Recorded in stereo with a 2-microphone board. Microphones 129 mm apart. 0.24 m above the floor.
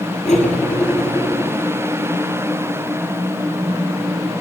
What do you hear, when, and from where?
0.2 s cutlery clinking: 55° left (ahead or behind), 3 m